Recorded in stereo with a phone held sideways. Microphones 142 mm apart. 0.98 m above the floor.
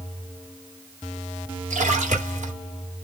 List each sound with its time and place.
1.7 s a splash: 55° right (ahead or behind), 2.5 m